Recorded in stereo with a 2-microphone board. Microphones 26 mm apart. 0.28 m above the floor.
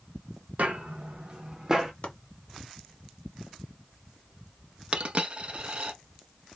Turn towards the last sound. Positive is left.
turn(degrees=-45)  # may be behind; listen again after turning